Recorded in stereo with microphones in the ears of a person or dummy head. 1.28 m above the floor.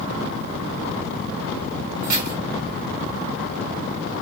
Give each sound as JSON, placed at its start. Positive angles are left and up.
{"t": 2.0, "sound": "keys jangling", "side_deg": -50, "distance_m": 1.8}